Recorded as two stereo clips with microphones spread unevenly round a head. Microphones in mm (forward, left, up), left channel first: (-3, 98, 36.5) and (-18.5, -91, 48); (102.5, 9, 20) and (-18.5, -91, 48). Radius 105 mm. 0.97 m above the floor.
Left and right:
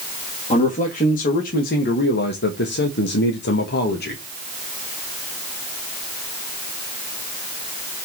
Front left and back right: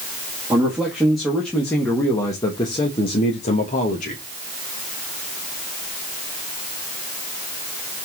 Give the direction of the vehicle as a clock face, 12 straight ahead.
No vehicle in this recording.